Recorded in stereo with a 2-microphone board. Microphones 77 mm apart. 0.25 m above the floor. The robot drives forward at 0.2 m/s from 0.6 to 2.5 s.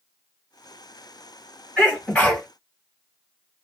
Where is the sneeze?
15° left (ahead or behind), 1.7 m.